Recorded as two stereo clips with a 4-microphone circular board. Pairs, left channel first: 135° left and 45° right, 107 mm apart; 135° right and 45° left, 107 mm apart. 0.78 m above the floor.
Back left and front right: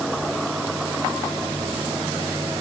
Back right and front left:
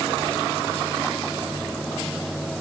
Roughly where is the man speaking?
No man speaking in this recording.